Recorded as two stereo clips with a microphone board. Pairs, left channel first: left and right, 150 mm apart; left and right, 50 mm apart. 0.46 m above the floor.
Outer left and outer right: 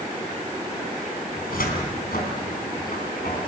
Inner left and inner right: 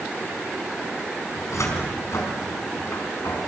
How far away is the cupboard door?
About 4.5 m.